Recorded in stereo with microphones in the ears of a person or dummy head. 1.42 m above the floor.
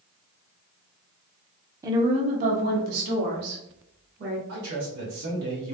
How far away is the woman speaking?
About 0.5 m.